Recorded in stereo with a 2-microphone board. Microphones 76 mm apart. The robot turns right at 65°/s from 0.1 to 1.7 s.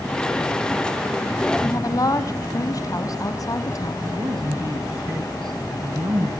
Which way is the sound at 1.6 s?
55° left (ahead or behind).